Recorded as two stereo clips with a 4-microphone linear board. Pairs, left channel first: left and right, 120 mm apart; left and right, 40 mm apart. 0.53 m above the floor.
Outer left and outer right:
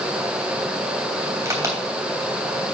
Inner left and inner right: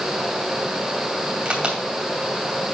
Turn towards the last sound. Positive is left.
turn(degrees=-25)  # may be behind; listen again after turning